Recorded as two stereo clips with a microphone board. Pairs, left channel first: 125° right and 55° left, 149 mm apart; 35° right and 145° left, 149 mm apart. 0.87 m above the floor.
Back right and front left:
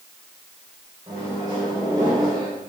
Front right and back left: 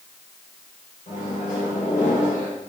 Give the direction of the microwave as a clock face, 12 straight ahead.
12 o'clock.